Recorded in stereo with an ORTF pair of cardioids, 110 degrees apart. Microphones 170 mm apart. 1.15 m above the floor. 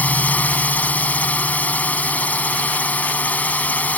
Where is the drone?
10° left.